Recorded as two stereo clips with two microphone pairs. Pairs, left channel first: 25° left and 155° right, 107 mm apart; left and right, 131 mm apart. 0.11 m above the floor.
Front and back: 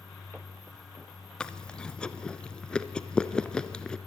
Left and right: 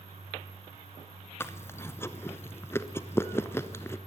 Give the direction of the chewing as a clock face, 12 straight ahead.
9 o'clock.